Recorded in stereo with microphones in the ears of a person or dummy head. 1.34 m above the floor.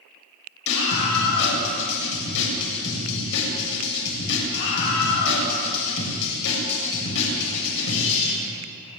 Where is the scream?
60° left (ahead or behind), 7.5 m.